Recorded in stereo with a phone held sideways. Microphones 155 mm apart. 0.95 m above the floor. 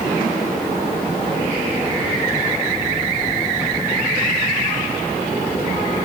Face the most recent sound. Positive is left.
No sound to turn to.